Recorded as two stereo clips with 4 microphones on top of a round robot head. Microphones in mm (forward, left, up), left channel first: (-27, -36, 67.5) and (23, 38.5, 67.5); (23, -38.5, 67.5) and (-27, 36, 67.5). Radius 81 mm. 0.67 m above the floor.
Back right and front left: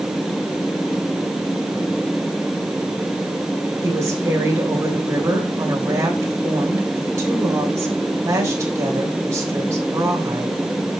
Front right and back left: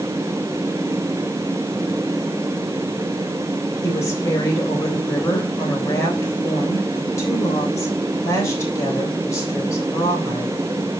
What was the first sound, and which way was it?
A woman speaking, 5° right.